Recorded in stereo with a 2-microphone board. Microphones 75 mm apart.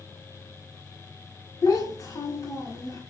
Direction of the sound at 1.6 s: 40° left (ahead or behind).